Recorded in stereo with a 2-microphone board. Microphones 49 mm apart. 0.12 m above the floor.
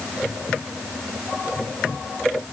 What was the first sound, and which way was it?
Only background noise.